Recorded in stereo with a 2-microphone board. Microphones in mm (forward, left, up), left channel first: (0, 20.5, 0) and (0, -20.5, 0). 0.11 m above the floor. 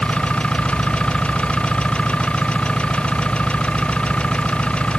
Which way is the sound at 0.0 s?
20° left (ahead or behind).